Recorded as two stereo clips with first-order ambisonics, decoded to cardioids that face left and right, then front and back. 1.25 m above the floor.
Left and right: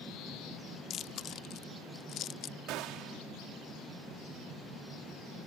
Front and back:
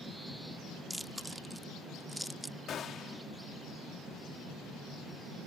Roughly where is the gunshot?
Ahead right.